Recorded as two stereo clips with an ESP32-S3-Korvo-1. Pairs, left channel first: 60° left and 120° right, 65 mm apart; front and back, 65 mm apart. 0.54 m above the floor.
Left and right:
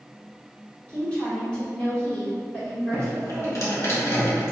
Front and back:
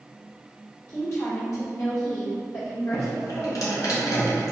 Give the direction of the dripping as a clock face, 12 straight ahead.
11 o'clock.